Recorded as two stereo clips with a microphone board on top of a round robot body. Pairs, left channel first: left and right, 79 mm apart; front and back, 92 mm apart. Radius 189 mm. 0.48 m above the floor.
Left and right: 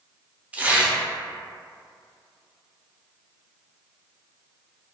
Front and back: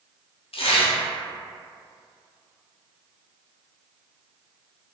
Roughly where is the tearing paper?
Ahead.